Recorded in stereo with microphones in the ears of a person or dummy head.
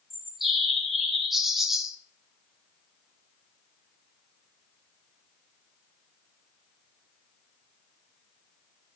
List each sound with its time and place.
0.1 s a bird: centre (ahead or behind), 0.5 m